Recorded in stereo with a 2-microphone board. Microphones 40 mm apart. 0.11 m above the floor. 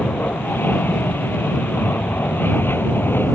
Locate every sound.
0.0 s an aircraft: 60° left (ahead or behind)